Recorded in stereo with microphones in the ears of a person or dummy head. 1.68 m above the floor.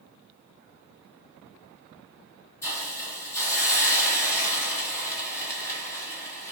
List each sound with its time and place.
2.6 s a hiss: 20° left (ahead or behind), 1.4 m